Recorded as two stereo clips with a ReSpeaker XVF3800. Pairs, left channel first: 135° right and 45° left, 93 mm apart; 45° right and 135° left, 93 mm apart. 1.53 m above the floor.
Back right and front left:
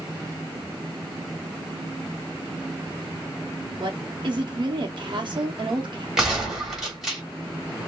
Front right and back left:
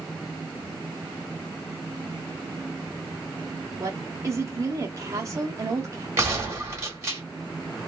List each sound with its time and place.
3.8 s a woman speaking: 80° left, 0.9 m
6.2 s a gunshot: 125° left, 1.4 m